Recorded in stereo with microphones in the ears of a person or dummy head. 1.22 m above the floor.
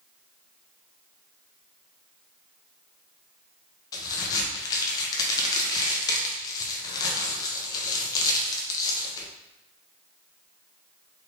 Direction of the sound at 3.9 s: 20° left (ahead or behind).